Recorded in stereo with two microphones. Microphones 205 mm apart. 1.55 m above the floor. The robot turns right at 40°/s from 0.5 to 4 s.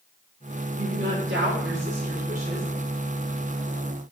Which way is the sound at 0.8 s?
105° right.